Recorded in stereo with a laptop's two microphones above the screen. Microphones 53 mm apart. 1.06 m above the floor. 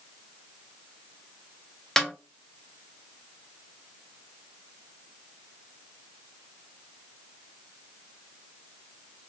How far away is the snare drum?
About 0.6 m.